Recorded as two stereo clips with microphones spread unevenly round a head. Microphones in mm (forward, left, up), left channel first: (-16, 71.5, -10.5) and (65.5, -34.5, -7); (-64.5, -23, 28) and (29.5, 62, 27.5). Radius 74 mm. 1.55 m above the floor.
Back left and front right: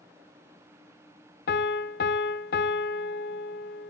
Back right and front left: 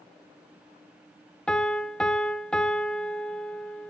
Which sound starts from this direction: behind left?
A piano, at 1.5 s.